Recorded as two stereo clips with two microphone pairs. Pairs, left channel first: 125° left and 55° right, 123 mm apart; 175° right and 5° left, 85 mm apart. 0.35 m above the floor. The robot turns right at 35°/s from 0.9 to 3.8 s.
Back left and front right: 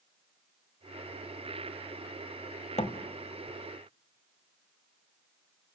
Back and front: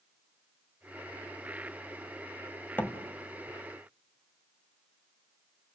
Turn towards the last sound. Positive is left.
turn(degrees=160)